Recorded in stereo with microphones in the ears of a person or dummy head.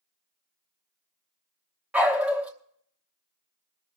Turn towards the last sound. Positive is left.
turn(degrees=-5)  # may be behind; listen again after turning